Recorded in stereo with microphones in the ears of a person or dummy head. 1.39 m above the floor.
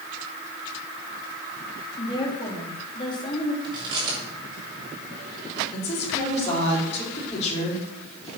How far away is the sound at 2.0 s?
About 3 m.